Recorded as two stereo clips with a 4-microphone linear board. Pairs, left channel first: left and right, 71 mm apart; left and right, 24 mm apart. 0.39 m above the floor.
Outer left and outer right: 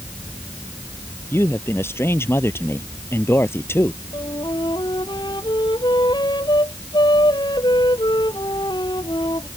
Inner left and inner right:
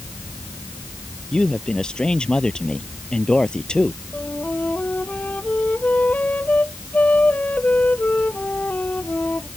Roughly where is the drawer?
No drawer in this recording.